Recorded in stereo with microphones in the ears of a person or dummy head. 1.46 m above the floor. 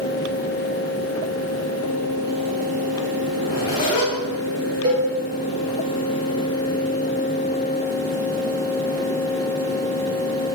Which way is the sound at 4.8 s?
20° right (ahead or behind).